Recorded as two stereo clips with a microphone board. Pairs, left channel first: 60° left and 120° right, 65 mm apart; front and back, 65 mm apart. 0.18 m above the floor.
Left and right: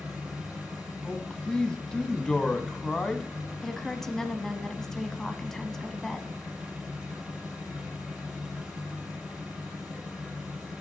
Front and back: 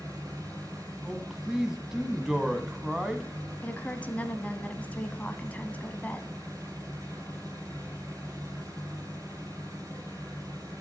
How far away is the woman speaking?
About 1.0 m.